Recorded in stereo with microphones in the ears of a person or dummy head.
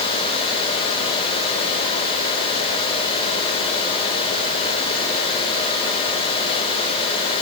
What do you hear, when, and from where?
Only background noise.